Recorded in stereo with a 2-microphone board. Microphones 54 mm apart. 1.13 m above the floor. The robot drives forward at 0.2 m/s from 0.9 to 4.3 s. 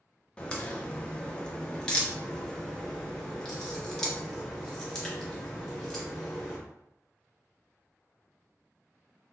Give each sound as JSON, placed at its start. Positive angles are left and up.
{"t": 0.4, "sound": "a crack", "side_deg": 15, "distance_m": 0.7}